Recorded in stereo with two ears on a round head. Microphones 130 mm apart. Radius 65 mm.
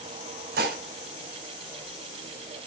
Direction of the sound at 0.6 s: 80° right.